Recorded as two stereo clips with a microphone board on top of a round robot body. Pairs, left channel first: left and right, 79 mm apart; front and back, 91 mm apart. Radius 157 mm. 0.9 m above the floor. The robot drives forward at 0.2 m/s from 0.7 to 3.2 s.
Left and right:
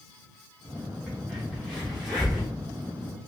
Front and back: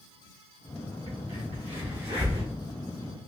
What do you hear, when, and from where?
1.1 s a crack: 175° right, 1.3 m